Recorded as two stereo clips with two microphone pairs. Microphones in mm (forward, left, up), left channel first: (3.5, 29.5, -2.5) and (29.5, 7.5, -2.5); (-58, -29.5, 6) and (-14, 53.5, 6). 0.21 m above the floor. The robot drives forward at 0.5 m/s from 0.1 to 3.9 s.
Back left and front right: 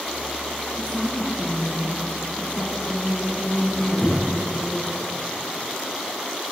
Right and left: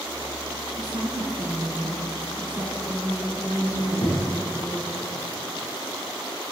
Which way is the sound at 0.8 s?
95° left.